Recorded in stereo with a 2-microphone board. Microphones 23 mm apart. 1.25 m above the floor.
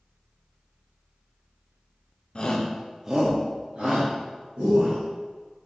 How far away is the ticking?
No ticking in this recording.